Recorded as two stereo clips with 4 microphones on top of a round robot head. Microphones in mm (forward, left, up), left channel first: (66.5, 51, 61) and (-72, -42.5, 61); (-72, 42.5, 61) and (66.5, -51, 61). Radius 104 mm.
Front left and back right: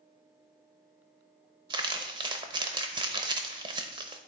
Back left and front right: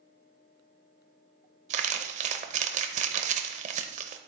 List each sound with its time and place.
1.7 s crumpling: 80° right, 0.7 m